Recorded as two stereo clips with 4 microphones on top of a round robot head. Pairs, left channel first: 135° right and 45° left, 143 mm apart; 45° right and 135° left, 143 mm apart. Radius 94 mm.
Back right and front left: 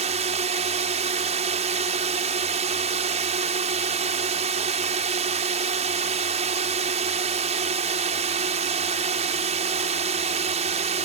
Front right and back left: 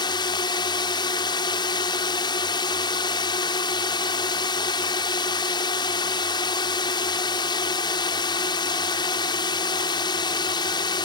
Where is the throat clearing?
No throat clearing in this recording.